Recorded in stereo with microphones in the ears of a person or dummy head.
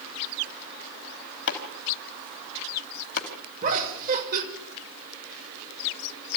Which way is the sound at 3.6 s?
50° right (ahead or behind).